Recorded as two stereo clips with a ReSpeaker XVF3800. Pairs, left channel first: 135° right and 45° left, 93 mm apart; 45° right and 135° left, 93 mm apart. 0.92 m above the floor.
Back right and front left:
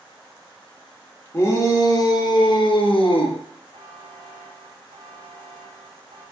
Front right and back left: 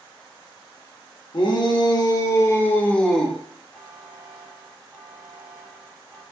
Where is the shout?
75° right, 1.2 m; by 3.4 s 135° right, 0.9 m.